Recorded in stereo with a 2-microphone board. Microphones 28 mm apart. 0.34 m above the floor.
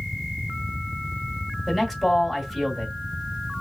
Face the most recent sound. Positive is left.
turn(degrees=-5)  # may be behind; listen again after turning